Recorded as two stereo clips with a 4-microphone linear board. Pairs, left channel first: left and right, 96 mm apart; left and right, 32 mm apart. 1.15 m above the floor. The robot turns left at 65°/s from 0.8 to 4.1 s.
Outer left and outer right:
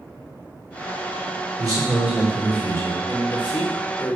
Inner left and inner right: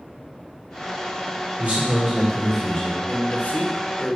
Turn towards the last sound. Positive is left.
turn(degrees=50)